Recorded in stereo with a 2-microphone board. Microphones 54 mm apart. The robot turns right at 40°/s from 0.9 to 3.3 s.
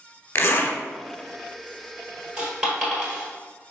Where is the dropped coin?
15° right (ahead or behind), 1.8 m; by 3.3 s 20° left (ahead or behind), 1.8 m.